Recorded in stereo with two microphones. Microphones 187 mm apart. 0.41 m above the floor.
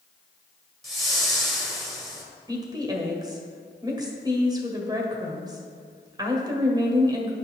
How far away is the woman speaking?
About 1.7 m.